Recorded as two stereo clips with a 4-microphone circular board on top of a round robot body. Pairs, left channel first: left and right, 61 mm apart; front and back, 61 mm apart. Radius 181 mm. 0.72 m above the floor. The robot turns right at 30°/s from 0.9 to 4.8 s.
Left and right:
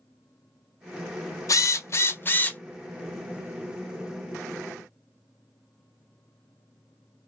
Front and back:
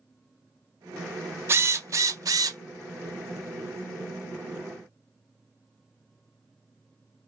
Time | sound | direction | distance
1.5 | a drill | 125° left | 0.6 m